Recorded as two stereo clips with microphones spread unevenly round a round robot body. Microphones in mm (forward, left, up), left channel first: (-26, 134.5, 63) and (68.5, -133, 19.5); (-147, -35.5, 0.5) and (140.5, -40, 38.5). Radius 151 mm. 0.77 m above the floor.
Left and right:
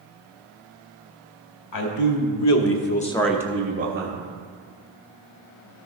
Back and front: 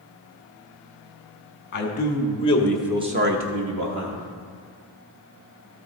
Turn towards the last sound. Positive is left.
turn(degrees=-30)